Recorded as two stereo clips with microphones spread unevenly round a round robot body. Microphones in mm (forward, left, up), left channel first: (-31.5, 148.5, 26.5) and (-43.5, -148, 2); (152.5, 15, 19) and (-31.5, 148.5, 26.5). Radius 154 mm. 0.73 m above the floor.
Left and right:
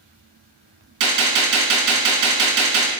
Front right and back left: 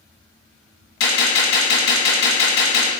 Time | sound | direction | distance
1.0 | a gunshot | 55° right | 1.1 m